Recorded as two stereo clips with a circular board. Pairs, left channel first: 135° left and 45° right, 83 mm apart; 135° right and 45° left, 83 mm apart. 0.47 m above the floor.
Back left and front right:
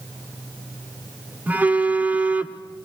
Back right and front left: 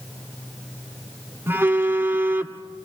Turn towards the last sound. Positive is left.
turn(degrees=10)